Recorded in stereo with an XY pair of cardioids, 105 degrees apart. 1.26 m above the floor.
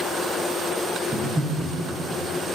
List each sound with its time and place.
1.1 s breathing: 15° right, 1.0 m